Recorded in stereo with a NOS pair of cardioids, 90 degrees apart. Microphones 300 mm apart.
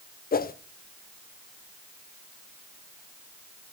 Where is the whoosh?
30° left, 0.9 m.